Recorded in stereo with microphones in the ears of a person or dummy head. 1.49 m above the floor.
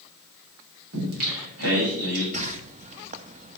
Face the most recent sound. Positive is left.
turn(degrees=-40)  # may be behind; listen again after turning